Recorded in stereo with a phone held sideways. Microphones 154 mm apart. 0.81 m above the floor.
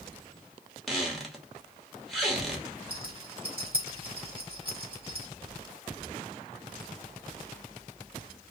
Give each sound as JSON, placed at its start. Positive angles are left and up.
{"t": 0.9, "sound": "a squeak", "side_deg": 0, "distance_m": 0.9}
{"t": 2.9, "sound": "a rattle", "side_deg": -35, "distance_m": 1.6}